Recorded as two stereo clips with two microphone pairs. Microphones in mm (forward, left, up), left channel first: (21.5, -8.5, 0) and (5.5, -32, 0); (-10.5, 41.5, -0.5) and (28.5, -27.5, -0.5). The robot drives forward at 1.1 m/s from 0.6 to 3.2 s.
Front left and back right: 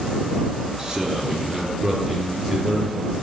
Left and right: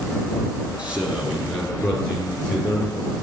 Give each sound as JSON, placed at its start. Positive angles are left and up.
{"t": 0.8, "sound": "a man speaking", "azimuth_deg": -105, "distance_m": 1.1}